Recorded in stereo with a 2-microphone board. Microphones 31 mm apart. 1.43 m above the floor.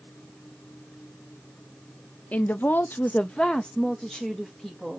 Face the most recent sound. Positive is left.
turn(degrees=0)  # may be behind; listen again after turning